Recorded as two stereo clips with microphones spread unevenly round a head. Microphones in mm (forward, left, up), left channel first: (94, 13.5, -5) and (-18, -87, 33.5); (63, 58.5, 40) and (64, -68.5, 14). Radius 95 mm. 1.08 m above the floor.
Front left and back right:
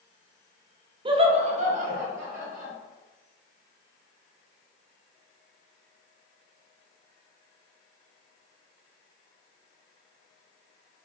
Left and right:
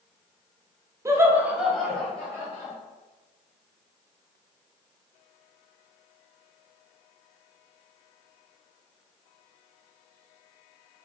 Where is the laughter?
85° right, 0.9 m; by 2.7 s 170° left, 1.5 m.